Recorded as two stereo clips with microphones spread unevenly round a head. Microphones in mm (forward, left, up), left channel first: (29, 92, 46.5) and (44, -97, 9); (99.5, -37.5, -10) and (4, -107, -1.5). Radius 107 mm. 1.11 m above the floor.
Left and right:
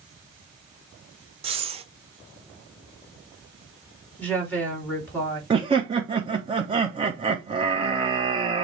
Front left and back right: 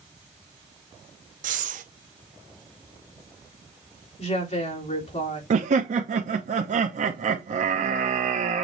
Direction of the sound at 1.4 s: 145° right.